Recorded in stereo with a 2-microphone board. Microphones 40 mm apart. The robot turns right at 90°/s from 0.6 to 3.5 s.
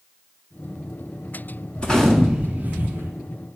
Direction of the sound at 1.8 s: 150° left.